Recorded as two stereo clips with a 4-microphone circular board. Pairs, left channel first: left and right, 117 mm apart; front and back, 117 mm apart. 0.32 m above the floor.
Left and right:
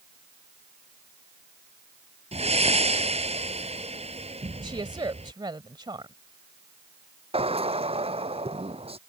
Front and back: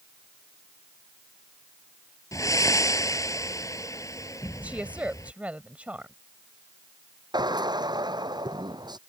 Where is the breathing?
60° right.